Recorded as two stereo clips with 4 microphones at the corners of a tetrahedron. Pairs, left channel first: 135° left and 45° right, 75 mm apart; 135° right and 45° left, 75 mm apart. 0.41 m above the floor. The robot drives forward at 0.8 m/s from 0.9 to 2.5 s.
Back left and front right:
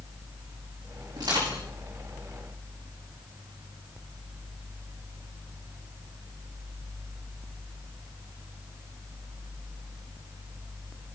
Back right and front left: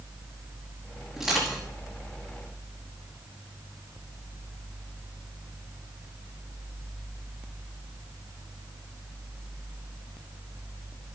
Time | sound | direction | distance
1.2 | crushing | 40° right | 6 m